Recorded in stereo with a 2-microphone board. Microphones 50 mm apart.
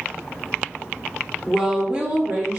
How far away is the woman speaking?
About 1.0 m.